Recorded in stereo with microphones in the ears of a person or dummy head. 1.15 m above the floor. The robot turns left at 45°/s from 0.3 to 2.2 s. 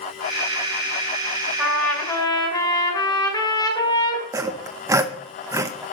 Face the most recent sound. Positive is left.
turn(degrees=-10)  # may be behind; listen again after turning